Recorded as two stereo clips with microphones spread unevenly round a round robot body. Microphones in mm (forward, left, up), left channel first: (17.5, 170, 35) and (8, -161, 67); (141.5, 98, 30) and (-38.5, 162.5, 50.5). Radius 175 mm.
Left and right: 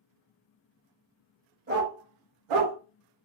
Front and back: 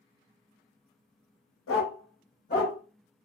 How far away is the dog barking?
About 0.9 m.